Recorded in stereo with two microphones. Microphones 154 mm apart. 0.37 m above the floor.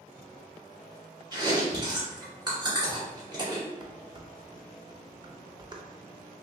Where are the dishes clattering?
30° right (ahead or behind), 0.5 m.